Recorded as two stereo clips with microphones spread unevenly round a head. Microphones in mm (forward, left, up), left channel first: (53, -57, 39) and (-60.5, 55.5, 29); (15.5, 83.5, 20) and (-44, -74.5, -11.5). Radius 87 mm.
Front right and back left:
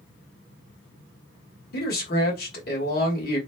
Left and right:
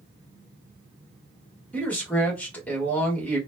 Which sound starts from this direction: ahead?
A man speaking, at 1.7 s.